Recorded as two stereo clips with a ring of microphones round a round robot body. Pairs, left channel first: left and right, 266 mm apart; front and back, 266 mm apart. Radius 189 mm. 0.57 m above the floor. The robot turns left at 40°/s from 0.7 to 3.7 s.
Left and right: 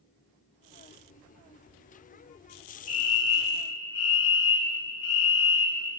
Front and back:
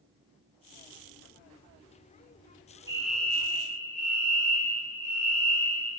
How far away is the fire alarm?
About 3.5 m.